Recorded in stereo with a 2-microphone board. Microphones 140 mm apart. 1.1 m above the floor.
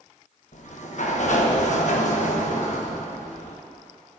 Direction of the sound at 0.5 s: 60° left (ahead or behind).